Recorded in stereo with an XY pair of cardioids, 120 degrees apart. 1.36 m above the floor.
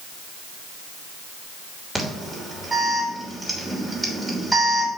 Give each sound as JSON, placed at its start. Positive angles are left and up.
{"t": 1.9, "sound": "an alarm", "azimuth_deg": -20, "distance_m": 3.0}